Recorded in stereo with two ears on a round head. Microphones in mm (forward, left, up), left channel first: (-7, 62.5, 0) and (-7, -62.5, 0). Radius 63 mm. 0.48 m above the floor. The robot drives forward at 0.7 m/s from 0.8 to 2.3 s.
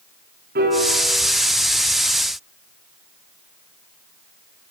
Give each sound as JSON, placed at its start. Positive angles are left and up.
{"t": 0.6, "sound": "a piano", "side_deg": -75, "distance_m": 6.0}